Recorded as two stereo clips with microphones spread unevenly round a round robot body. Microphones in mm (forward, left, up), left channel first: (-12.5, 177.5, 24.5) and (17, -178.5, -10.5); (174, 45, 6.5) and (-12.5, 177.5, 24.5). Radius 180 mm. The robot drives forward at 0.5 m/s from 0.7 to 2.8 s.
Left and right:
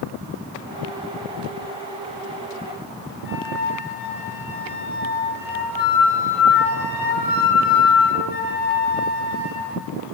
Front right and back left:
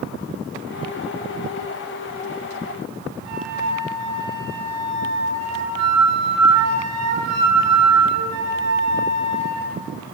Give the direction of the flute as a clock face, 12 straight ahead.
7 o'clock.